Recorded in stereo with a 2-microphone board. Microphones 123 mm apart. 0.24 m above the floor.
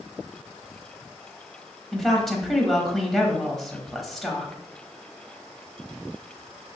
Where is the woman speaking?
Centre (ahead or behind), 1.0 m.